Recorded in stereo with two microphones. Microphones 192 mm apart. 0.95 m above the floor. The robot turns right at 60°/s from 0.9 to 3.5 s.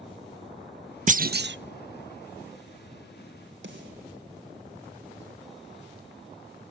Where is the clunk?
40° right (ahead or behind), 0.5 m; by 1.6 s 70° right (ahead or behind), 0.5 m.